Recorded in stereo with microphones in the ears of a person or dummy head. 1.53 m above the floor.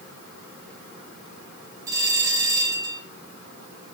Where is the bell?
15° right (ahead or behind), 8 m.